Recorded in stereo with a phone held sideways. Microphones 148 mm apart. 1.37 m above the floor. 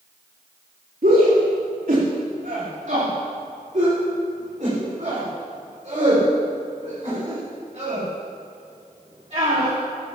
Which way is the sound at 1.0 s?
75° right (ahead or behind).